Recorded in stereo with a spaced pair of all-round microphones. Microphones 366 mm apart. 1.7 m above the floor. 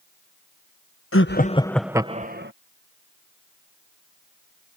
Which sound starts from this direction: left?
Laughter, at 1.1 s.